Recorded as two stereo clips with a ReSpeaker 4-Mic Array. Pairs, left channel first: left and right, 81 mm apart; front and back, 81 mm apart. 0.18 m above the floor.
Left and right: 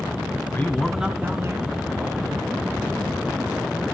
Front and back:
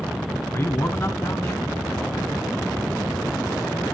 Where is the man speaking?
40° left, 1.3 m; by 2.5 s 75° right, 3 m.